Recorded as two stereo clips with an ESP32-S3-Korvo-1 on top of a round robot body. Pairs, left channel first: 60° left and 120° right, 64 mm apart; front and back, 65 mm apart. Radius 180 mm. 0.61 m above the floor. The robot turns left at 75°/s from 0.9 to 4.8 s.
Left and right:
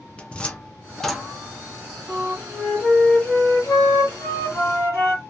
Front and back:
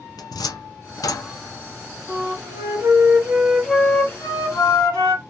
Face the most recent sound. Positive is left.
turn(degrees=10)